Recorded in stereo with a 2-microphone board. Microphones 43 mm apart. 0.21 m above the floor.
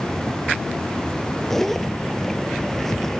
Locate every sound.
1.5 s a zipper: 10° left (ahead or behind), 0.7 m